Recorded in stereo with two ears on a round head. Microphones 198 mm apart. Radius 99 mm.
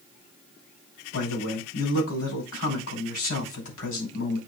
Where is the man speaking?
75° left (ahead or behind), 5.5 m.